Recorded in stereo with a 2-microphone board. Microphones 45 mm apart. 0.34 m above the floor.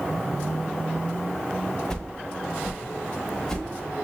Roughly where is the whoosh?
Centre.